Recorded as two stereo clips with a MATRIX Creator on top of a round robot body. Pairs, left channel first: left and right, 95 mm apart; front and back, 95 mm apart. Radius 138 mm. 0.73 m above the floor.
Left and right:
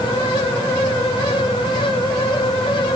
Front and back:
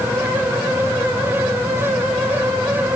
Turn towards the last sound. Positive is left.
No sound to turn to.